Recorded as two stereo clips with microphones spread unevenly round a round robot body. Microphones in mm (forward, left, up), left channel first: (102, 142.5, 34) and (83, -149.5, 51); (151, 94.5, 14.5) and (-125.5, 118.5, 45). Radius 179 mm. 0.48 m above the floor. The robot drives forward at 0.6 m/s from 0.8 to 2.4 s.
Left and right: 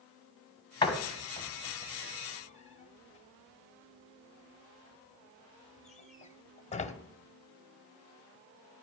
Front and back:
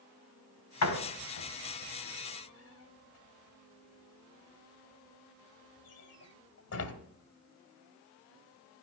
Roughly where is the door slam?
Ahead.